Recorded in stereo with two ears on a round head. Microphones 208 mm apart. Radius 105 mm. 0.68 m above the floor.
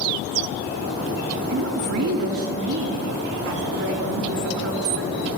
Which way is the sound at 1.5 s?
60° right (ahead or behind).